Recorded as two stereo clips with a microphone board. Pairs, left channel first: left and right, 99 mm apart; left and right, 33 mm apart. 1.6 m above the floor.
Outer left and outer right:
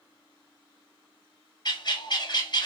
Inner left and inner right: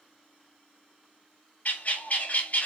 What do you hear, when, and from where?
1.6 s a bird: 45° left (ahead or behind), 0.6 m